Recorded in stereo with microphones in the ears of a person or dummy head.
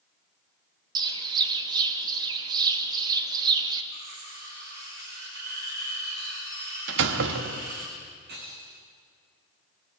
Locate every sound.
0.9 s a bird: 25° right (ahead or behind), 2.5 m
3.9 s cutlery clinking: 65° right (ahead or behind), 6.5 m
6.9 s a door slam: 75° right (ahead or behind), 1.5 m
8.3 s breaking glass: 65° right (ahead or behind), 4.5 m